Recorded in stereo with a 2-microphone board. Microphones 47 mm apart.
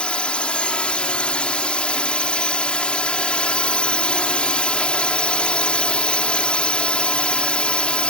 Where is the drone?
25° left (ahead or behind).